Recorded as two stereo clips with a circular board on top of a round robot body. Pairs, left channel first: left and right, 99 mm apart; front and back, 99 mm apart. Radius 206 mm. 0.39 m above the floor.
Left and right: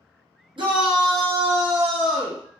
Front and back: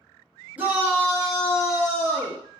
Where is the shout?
110° right, 1.2 m; by 2.4 s 175° left, 1.0 m.